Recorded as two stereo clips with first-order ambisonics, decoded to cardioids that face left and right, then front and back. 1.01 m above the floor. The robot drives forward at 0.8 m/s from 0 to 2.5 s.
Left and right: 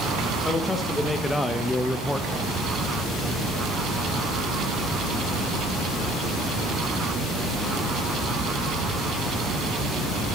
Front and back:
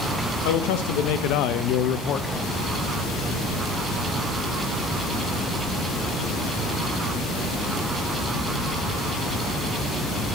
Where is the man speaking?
5° left, 2.0 m; by 2.3 s 15° left, 0.8 m.